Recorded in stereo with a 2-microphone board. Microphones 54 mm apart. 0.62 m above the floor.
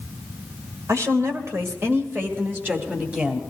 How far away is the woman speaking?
About 2 m.